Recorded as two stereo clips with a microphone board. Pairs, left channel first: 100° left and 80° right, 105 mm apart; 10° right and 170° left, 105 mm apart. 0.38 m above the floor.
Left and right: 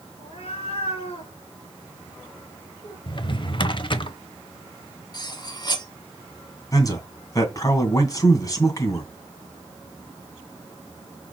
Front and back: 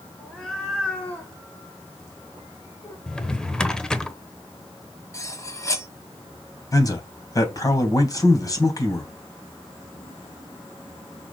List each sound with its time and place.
0.2 s a cat meowing: 80° left, 3 m; by 3.0 s 40° left, 3 m
3.1 s a drawer: 70° left, 0.8 m
5.1 s cutlery clinking: 50° left, 1.4 m
6.7 s a man speaking: 45° left, 2.5 m